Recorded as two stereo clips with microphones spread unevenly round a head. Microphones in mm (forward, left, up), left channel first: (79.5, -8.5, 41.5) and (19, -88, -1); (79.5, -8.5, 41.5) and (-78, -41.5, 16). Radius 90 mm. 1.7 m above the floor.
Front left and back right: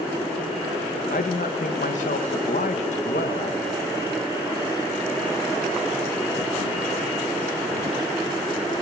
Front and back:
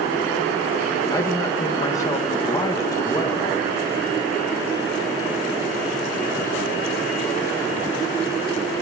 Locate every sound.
1.1 s a man speaking: 85° left, 3 m